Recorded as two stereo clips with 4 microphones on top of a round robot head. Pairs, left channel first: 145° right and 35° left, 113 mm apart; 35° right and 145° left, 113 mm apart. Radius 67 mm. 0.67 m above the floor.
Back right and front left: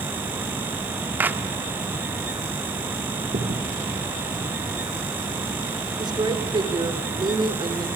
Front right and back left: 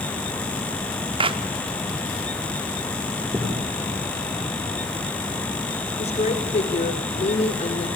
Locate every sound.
1.2 s a clap: 110° left, 1.7 m
3.2 s a crack: 70° left, 5.5 m
6.0 s a woman speaking: 15° right, 3 m